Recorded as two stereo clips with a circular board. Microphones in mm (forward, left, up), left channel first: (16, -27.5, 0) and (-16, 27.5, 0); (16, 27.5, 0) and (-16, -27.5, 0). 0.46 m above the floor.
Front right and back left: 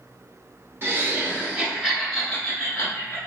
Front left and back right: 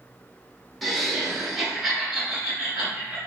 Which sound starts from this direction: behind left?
Laughter, at 0.8 s.